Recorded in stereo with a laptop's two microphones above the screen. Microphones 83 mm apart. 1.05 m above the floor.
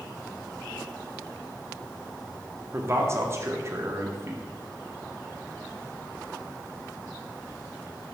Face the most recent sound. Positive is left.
turn(degrees=-35)  # may be behind; listen again after turning